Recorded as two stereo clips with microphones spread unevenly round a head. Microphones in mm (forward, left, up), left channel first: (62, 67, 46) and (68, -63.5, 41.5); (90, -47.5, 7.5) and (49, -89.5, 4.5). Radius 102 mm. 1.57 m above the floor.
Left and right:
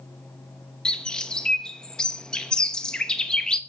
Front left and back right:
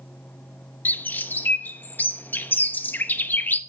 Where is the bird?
15° left, 1.0 m.